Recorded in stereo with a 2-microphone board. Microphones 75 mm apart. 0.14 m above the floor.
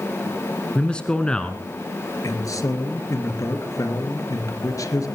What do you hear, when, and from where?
0.8 s a man speaking: 10° left (ahead or behind), 1.2 m
2.2 s a man speaking: 50° left (ahead or behind), 3 m